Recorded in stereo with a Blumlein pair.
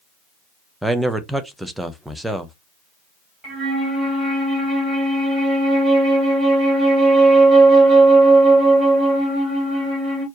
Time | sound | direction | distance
0.8 | a man speaking | 5° right | 0.8 m
3.4 | a flute | 20° right | 3 m